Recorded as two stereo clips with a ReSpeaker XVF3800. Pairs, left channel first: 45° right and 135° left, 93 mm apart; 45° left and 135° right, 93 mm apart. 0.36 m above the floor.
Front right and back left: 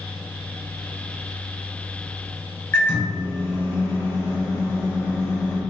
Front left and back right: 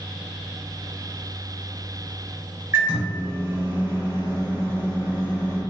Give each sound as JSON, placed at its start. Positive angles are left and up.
{"t": 2.7, "sound": "a microwave", "azimuth_deg": -90, "distance_m": 1.1}